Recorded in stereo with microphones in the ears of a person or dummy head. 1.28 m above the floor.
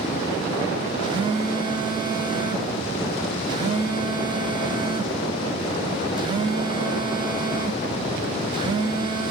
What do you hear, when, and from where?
1.0 s a phone buzzing: 25° right (ahead or behind), 0.5 m